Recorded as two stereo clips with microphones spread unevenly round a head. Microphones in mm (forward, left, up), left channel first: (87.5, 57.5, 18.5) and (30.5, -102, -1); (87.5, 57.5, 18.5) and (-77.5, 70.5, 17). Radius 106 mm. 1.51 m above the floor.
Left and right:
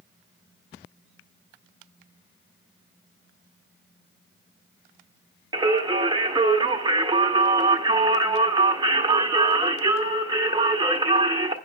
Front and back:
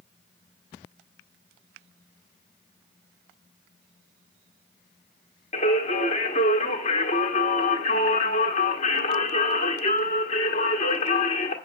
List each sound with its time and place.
5.5 s singing: 45° right, 1.4 m